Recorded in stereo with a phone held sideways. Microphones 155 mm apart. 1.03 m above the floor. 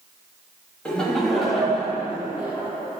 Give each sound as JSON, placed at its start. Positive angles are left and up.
{"t": 0.8, "sound": "laughter", "side_deg": 10, "distance_m": 1.9}